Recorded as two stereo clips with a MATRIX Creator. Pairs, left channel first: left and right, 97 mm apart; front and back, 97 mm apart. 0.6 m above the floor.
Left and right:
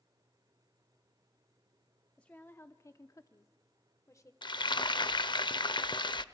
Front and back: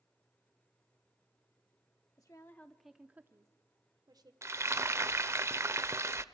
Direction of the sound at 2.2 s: 20° left.